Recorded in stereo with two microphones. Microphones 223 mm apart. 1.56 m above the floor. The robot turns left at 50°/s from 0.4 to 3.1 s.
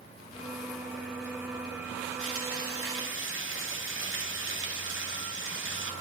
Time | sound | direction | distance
2.2 | frying | 70° right | 2 m